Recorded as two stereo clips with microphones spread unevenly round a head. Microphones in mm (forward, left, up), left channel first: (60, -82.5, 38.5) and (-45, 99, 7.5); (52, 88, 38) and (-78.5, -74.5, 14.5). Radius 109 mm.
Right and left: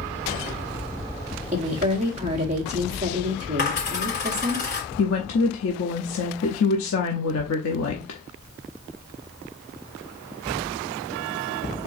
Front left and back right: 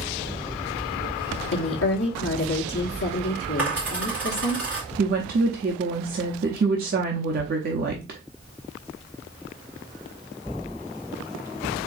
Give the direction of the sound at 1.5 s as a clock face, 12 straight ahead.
10 o'clock.